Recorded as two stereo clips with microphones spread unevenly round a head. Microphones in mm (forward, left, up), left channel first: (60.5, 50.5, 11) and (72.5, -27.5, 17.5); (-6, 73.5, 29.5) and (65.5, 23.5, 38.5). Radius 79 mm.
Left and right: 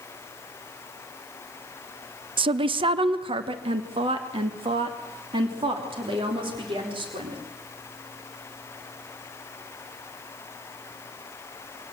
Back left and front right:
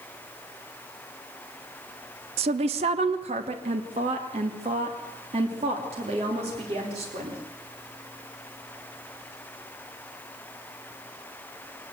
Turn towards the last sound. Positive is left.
turn(degrees=-70)